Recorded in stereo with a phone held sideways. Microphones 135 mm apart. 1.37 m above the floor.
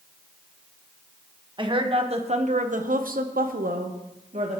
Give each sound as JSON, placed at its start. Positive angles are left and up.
{"t": 1.6, "sound": "a woman speaking", "side_deg": -35, "distance_m": 1.4}